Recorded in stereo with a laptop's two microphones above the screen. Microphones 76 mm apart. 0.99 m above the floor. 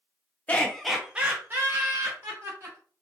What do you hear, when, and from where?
0.5 s laughter: 20° left (ahead or behind), 0.6 m; by 2.8 s 45° right (ahead or behind), 1.3 m